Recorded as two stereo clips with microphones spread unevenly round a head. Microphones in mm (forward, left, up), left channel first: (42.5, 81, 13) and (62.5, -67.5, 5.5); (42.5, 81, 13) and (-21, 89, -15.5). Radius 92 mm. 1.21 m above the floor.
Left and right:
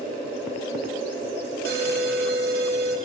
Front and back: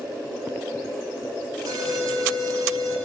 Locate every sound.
1.6 s an alarm: 120° right, 3 m